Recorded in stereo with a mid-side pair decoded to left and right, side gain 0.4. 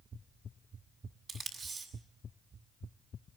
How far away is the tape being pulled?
About 6.5 m.